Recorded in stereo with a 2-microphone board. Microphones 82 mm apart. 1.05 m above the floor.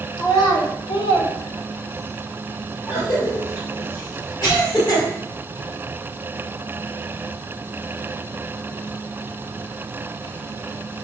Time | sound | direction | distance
0.2 | a child speaking | 55° left (ahead or behind) | 1.2 m
2.9 | a cough | 45° left (ahead or behind) | 1.8 m